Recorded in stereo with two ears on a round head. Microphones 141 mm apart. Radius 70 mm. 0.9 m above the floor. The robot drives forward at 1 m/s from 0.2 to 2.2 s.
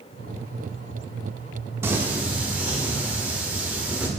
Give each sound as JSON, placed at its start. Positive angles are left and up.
{"t": 1.8, "sound": "singing", "side_deg": -15, "distance_m": 0.6}